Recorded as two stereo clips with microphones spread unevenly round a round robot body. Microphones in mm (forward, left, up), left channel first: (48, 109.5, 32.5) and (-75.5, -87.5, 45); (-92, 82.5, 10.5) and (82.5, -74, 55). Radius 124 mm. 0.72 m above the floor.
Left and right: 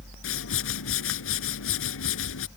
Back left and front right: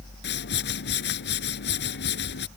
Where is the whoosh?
90° left.